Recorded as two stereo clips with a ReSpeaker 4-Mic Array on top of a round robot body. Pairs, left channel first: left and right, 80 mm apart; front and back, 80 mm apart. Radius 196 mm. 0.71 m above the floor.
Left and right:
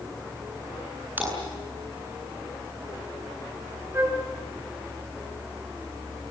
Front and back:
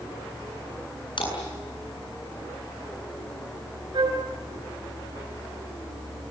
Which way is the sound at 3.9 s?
150° right.